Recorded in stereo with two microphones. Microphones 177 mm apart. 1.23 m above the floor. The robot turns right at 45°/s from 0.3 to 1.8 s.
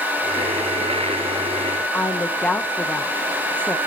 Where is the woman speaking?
5° left (ahead or behind), 0.8 m.